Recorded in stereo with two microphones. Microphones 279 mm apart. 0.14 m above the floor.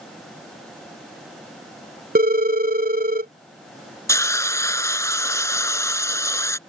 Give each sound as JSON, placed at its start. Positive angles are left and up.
{"t": 2.1, "sound": "a phone ringing", "side_deg": -35}
{"t": 4.1, "sound": "a hiss", "side_deg": 10}